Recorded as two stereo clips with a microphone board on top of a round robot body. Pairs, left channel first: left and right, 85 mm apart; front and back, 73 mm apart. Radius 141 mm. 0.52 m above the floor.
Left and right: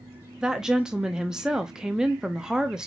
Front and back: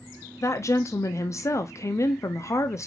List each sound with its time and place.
0.4 s a woman speaking: 10° right, 0.8 m